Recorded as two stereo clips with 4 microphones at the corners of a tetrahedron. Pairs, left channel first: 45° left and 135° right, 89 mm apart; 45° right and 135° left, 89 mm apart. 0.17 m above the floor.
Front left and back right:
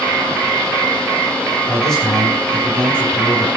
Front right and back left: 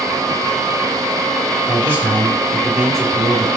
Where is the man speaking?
125° left, 1.7 m; by 3.6 s 5° left, 1.6 m.